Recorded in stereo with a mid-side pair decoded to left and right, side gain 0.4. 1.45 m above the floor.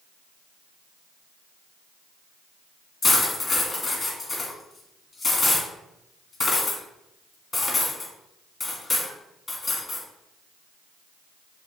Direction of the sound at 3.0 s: 35° left.